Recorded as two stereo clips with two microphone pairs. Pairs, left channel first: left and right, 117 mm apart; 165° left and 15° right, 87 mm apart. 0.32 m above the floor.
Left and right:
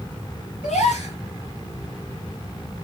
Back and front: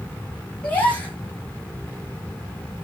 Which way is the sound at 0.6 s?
95° left.